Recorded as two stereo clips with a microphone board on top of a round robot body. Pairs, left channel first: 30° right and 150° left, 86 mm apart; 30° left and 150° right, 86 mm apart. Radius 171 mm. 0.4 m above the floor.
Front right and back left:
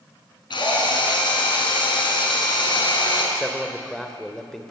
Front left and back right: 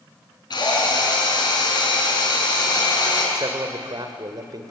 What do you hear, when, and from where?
0.5 s a drill: 5° right, 6 m
3.4 s a man speaking: 115° right, 2.5 m